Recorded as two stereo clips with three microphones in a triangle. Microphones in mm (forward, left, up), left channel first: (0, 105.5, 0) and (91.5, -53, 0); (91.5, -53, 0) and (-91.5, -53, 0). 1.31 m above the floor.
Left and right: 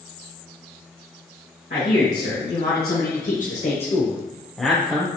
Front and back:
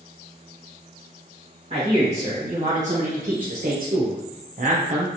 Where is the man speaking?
130° left, 1.8 m; by 5.1 s 125° right, 0.7 m.